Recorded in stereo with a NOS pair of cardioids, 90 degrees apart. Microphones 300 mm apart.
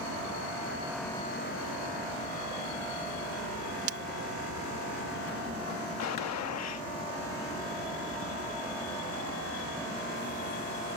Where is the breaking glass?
50° right.